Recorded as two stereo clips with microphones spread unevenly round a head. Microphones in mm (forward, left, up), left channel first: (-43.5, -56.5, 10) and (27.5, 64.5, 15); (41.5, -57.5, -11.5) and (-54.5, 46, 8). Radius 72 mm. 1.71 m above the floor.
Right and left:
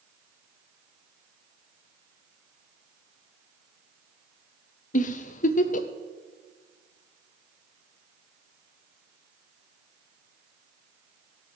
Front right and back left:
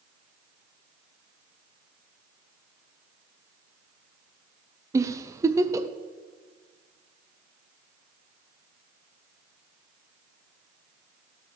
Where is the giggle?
155° right, 0.7 m.